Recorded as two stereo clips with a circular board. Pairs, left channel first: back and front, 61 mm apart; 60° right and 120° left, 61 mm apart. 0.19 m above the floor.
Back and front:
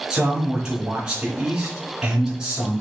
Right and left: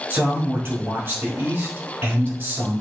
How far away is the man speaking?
About 2.5 m.